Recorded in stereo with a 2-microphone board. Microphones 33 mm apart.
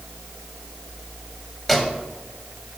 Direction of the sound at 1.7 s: Centre (ahead or behind).